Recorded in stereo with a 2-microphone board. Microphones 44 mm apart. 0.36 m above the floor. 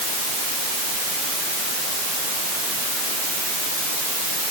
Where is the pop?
I don't hear a pop.